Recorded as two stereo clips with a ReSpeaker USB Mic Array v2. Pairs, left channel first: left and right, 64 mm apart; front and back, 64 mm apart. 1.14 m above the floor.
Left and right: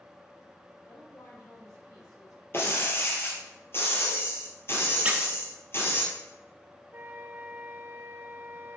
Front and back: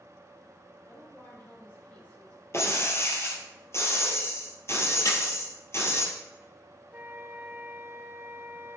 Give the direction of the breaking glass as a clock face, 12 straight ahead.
11 o'clock.